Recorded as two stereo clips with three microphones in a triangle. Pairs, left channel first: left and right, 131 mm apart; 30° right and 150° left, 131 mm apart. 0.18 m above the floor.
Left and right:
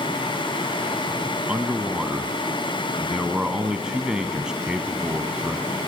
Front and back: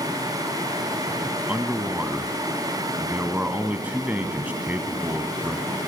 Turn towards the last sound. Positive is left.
turn(degrees=-160)